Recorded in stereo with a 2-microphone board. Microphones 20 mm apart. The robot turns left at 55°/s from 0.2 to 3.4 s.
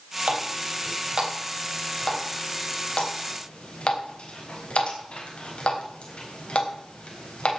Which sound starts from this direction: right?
A running tap, at 0.3 s.